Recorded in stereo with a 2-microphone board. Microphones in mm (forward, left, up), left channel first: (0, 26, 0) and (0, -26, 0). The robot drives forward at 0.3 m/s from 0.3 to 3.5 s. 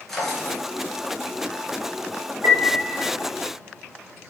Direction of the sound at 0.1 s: 5° left (ahead or behind).